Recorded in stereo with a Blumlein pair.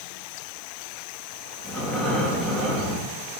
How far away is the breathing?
About 2 m.